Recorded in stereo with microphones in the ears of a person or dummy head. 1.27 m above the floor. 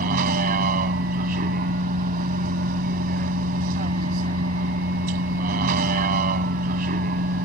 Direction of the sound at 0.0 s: 45° right (ahead or behind).